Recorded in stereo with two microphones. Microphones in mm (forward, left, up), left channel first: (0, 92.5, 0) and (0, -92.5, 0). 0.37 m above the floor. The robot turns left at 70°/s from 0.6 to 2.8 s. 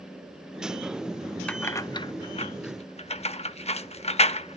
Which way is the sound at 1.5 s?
5° left (ahead or behind).